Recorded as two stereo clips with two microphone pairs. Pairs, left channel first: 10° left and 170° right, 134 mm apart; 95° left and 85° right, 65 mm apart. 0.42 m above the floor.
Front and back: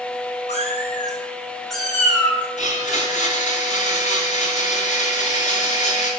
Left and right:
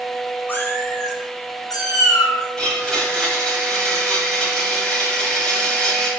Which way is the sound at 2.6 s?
20° left.